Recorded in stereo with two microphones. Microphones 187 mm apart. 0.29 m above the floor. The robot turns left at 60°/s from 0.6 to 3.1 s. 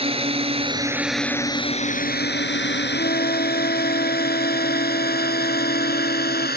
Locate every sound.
0.0 s a drone: 30° right (ahead or behind); by 6.6 s 60° left (ahead or behind)
2.9 s a flute: 65° left (ahead or behind); by 6.5 s 55° left (ahead or behind)